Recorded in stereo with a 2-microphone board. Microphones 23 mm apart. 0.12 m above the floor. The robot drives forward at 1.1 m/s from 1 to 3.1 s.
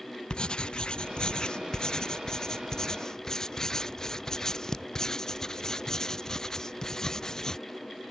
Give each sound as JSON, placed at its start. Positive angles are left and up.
{"t": 0.3, "sound": "writing", "side_deg": 45}